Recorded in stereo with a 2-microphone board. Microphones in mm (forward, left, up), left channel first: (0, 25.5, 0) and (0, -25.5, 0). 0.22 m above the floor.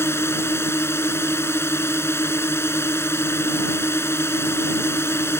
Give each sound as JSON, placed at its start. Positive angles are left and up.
{"t": 0.0, "sound": "a drone", "side_deg": 60}